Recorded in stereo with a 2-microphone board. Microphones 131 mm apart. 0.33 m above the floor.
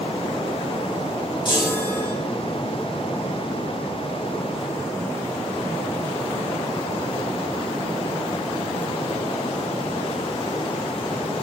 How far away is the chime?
About 7 m.